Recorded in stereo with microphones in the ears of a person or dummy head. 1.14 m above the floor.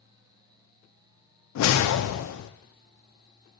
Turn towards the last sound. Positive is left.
turn(degrees=80)